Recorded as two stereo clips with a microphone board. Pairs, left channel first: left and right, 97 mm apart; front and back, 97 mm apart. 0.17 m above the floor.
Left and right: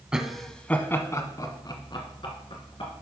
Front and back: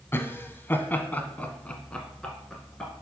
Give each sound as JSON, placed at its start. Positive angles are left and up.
{"t": 0.1, "sound": "laughter", "azimuth_deg": -20, "distance_m": 1.1}